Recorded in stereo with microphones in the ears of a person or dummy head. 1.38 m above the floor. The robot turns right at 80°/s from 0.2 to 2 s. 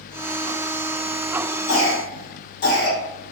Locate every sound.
1.7 s a cough: 75° left (ahead or behind), 1.6 m; by 3.0 s 50° left (ahead or behind), 1.6 m